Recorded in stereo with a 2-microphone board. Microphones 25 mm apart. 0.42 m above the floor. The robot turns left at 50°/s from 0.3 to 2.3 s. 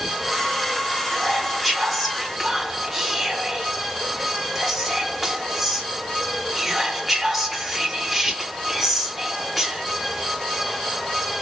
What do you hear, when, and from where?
1.1 s whispering: 20° left (ahead or behind), 0.9 m; by 9.8 s 5° right (ahead or behind), 0.9 m